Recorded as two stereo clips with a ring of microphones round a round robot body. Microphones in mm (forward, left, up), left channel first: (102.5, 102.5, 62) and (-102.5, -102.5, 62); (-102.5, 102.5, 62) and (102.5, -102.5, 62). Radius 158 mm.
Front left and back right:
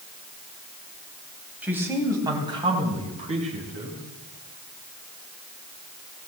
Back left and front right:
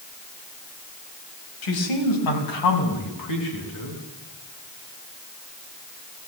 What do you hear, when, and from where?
1.6 s a man speaking: 140° left, 4.5 m; by 4.0 s 160° left, 7.5 m